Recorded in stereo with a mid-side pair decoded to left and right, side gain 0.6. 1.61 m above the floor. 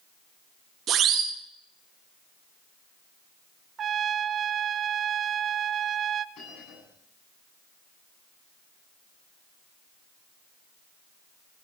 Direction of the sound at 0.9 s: 50° right.